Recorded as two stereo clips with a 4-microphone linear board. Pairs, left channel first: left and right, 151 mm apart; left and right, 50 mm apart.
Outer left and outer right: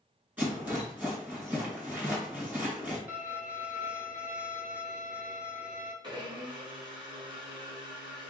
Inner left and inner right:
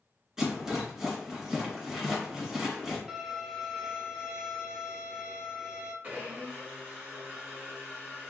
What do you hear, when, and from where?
0.4 s a rattle: 15° right (ahead or behind), 2 m
3.1 s a violin: 10° right (ahead or behind), 1.1 m
6.0 s a blender: 35° right (ahead or behind), 1.6 m